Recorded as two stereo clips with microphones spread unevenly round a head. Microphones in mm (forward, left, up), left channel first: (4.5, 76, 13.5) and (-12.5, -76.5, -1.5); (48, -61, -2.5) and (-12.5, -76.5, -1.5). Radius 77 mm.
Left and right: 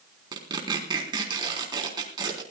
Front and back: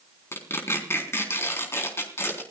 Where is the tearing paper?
30° right, 4 m.